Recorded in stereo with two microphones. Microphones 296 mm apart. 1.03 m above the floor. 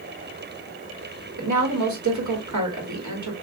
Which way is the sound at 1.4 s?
70° right (ahead or behind).